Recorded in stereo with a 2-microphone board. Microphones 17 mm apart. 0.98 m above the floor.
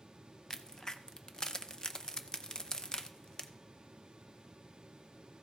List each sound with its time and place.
0.5 s a crack: 35° left (ahead or behind), 0.6 m